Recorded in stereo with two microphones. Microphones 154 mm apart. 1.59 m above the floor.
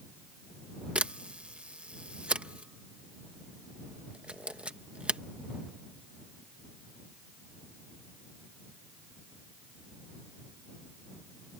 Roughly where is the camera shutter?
Centre.